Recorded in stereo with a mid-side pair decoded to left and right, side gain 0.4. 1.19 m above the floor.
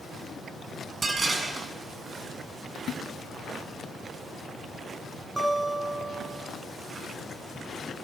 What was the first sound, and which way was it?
Dishes clattering, 45° right.